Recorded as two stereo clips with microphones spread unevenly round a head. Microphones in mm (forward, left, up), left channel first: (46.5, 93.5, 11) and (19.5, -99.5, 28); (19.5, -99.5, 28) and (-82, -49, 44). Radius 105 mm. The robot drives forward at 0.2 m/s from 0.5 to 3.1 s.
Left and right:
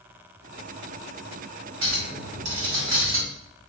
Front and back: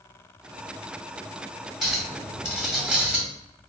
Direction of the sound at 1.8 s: 120° right.